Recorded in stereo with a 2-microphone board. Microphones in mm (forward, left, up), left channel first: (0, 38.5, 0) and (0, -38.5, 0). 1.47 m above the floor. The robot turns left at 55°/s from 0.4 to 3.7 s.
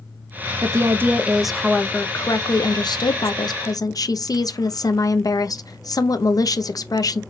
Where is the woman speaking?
130° right, 0.5 m; by 7.2 s 60° left, 0.5 m.